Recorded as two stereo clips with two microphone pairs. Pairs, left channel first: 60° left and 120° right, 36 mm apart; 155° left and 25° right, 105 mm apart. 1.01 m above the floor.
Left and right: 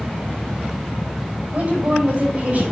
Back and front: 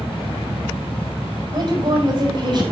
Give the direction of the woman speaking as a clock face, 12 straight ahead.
2 o'clock.